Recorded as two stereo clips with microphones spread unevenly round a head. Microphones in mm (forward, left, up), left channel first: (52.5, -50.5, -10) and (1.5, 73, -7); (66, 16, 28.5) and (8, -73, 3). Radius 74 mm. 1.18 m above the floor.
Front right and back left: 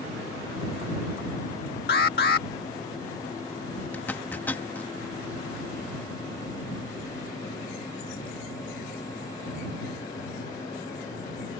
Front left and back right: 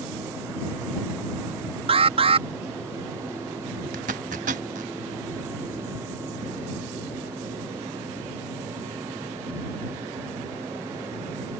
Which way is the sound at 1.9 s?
95° right.